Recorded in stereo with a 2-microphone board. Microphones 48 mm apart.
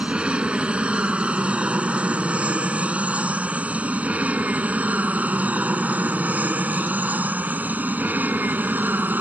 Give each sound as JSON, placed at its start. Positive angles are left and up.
{"t": 0.0, "sound": "an aircraft", "side_deg": -20}